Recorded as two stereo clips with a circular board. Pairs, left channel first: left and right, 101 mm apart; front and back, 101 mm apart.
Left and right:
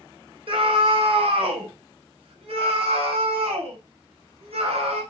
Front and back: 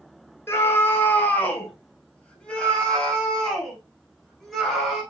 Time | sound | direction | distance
0.5 | a scream | 65° right | 3 m